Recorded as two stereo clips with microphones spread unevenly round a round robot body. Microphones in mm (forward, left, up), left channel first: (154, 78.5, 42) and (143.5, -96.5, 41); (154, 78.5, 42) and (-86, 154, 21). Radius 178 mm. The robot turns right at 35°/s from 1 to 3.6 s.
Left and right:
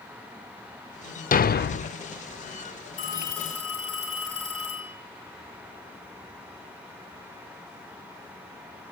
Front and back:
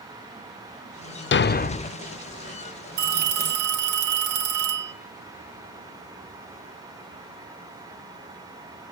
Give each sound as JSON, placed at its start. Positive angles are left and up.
{"t": 1.3, "sound": "a thud", "azimuth_deg": 35, "distance_m": 0.6}
{"t": 3.0, "sound": "a phone ringing", "azimuth_deg": 155, "distance_m": 2.5}